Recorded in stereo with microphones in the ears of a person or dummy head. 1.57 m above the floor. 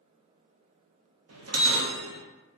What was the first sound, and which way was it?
A bell, 80° right.